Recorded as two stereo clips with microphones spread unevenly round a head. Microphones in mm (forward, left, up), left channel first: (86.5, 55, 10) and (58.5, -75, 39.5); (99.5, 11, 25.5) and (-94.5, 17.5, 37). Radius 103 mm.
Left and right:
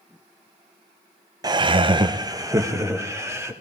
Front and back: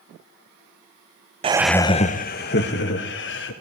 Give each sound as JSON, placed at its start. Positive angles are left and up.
{"t": 1.4, "sound": "laughter", "azimuth_deg": -160, "distance_m": 0.6}